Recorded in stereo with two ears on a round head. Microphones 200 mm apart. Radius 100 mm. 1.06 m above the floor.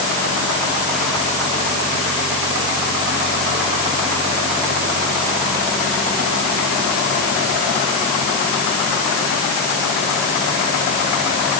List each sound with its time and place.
Only background noise.